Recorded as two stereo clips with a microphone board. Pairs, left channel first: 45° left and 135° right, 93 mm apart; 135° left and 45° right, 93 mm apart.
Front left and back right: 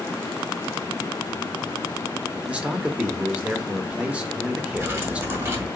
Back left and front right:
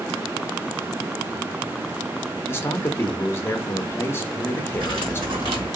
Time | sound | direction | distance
2.5 | a man speaking | 160° left | 0.6 m
4.8 | cutlery clinking | 75° right | 1.4 m